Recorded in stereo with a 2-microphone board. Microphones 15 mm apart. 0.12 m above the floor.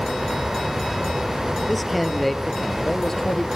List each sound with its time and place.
1.7 s a man speaking: centre (ahead or behind), 3 m; by 3.5 s 40° left (ahead or behind), 2.5 m